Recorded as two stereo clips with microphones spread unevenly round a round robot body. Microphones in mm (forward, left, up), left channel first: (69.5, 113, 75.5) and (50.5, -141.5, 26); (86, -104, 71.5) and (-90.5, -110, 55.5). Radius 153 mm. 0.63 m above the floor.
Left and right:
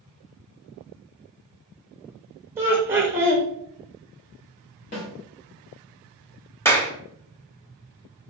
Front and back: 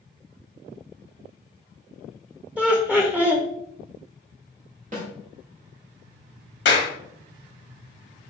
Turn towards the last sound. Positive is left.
turn(degrees=0)